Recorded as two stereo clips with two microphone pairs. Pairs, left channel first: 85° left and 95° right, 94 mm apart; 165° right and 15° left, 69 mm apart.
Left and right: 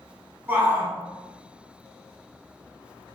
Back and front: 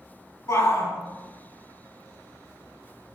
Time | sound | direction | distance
0.5 | a shout | 155° right | 1.6 m